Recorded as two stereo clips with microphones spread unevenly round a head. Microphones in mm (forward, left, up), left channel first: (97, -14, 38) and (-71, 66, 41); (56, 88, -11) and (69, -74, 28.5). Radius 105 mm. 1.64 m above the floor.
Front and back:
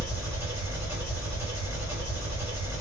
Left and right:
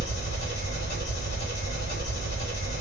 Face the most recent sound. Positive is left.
turn(degrees=75)